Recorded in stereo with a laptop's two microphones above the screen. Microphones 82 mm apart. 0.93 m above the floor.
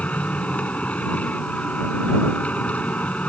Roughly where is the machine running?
Centre.